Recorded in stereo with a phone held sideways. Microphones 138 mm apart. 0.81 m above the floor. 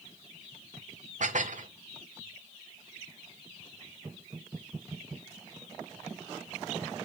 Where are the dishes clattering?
70° right (ahead or behind), 1.3 m.